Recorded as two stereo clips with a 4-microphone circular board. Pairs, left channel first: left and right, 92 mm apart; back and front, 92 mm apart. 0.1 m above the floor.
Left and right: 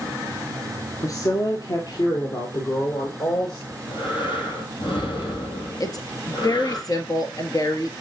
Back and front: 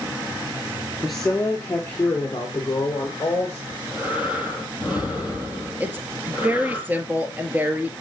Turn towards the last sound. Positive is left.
turn(degrees=65)